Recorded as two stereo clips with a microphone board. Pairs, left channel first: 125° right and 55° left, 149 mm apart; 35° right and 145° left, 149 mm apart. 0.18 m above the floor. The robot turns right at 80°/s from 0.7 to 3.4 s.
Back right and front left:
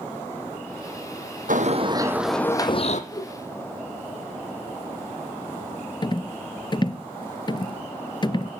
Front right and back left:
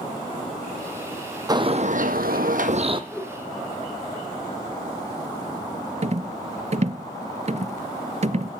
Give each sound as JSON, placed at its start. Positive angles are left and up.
{"t": 1.5, "sound": "a bird", "azimuth_deg": 80, "distance_m": 1.1}
{"t": 3.1, "sound": "a whoosh", "azimuth_deg": -115, "distance_m": 1.2}
{"t": 6.0, "sound": "a rattle", "azimuth_deg": 180, "distance_m": 0.5}